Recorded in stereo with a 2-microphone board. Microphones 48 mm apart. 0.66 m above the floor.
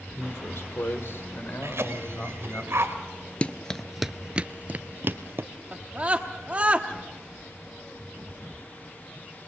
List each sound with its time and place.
0.1 s a man speaking: 65° left (ahead or behind), 2 m; by 2.6 s 40° left (ahead or behind), 4 m
1.6 s a cough: 65° right (ahead or behind), 2.5 m
3.4 s running footsteps: 25° left (ahead or behind), 0.7 m; by 5.5 s 55° right (ahead or behind), 1.1 m
5.7 s a scream: 30° right (ahead or behind), 1.0 m